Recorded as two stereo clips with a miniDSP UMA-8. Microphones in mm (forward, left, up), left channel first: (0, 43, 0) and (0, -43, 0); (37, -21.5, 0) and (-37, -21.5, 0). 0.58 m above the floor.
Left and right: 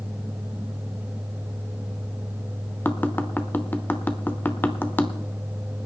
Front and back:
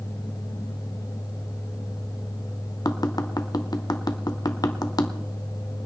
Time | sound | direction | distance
2.9 | tapping | 25° left | 0.9 m